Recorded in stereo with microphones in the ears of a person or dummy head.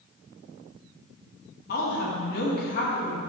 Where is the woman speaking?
60° left (ahead or behind), 2.0 m.